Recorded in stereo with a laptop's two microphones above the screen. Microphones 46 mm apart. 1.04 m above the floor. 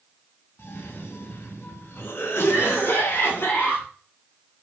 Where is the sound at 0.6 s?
55° left (ahead or behind), 0.9 m.